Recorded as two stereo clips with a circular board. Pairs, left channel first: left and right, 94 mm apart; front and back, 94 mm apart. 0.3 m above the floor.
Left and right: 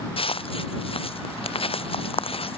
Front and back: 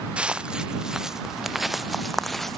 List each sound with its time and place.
0.2 s footsteps: 100° left; by 2.6 s 85° left